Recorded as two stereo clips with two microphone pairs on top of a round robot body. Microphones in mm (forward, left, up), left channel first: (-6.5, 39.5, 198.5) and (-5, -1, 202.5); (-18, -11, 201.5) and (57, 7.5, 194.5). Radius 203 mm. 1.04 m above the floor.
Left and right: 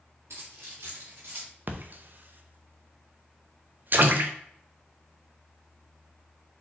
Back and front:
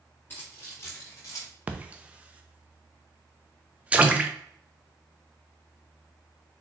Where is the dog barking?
I don't hear a dog barking.